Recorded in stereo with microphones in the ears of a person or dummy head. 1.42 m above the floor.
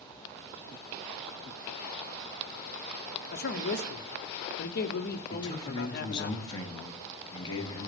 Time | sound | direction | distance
3.3 | a man speaking | 55° left (ahead or behind) | 0.9 m
5.3 | a man speaking | 20° left (ahead or behind) | 1.7 m